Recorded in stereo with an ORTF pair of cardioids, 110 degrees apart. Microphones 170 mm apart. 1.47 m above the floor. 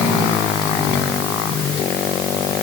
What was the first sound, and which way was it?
Only background noise.